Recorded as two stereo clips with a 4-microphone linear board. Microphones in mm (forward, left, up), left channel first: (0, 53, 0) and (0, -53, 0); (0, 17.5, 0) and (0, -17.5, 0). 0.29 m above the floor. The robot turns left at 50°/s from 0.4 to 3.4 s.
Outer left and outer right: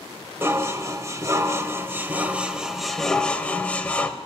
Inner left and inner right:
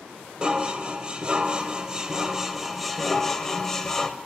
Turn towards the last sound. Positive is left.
turn(degrees=10)  # may be behind; listen again after turning